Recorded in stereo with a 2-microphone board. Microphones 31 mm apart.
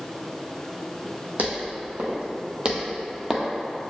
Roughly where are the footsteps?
Right.